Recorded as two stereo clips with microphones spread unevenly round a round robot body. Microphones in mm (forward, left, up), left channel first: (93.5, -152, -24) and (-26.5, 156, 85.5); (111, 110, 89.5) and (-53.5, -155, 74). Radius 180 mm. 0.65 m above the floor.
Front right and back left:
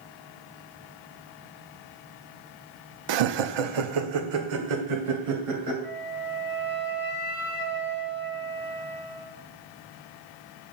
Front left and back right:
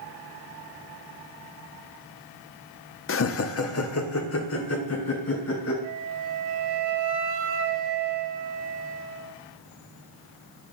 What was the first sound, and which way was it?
Laughter, 95° left.